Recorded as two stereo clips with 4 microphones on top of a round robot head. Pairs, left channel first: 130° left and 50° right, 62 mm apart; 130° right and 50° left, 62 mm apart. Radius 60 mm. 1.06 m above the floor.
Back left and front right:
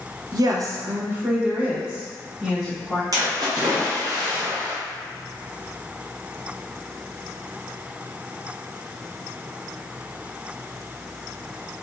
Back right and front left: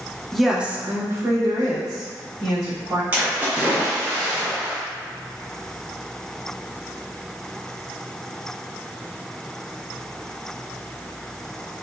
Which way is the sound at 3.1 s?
15° right.